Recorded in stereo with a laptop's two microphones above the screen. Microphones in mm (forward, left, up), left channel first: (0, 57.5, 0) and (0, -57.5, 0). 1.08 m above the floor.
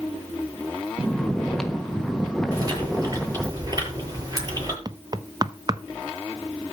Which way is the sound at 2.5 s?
30° right (ahead or behind).